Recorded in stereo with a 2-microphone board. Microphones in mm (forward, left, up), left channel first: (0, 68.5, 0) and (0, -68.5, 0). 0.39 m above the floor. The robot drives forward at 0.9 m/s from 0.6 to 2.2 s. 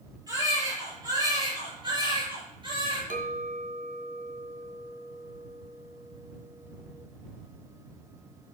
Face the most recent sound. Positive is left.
turn(degrees=-75)  # may be behind; listen again after turning